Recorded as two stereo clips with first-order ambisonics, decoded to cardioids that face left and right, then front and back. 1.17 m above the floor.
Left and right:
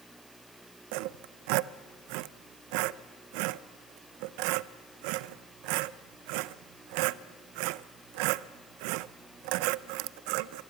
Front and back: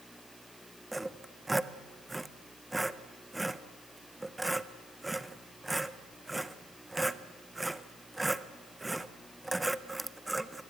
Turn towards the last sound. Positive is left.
turn(degrees=-95)